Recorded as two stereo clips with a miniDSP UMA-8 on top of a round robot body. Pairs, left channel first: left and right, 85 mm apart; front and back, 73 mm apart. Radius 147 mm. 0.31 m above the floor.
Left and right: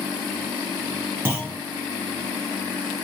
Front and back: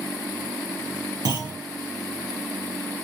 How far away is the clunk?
About 4.5 m.